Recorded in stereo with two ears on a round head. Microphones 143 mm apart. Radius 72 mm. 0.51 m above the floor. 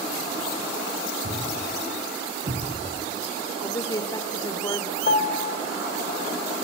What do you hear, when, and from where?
1.2 s a thud: 40° right (ahead or behind), 4.5 m
3.6 s a woman speaking: 20° left (ahead or behind), 1.8 m
5.1 s a piano: 50° left (ahead or behind), 1.9 m